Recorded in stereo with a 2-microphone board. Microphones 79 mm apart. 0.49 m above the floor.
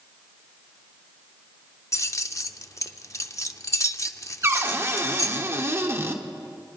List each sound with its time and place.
1.9 s keys jangling: 40° left (ahead or behind), 0.6 m
4.4 s a cupboard door: 35° right (ahead or behind), 1.2 m